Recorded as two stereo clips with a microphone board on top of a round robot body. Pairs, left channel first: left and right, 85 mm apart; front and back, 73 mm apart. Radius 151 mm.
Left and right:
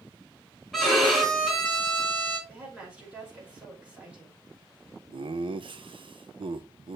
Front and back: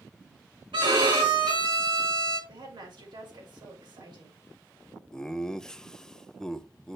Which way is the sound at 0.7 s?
Straight behind.